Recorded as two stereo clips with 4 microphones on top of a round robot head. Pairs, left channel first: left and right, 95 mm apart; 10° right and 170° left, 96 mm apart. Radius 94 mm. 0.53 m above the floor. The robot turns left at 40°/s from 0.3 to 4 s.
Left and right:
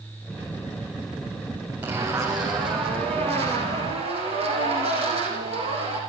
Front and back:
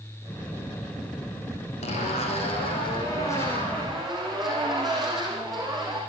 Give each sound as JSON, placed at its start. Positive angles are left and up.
{"t": 1.8, "sound": "a zipper", "azimuth_deg": -15, "distance_m": 7.0}